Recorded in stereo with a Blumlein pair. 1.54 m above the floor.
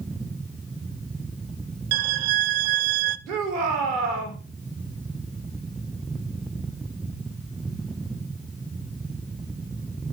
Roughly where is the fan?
Ahead.